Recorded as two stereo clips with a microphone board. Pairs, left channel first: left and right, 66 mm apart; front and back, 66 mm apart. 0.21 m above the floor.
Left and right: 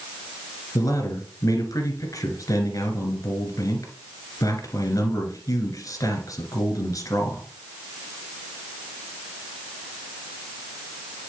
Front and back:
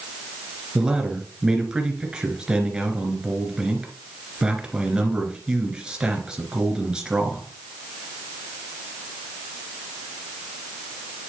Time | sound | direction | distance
0.8 | a man speaking | 105° left | 2.5 m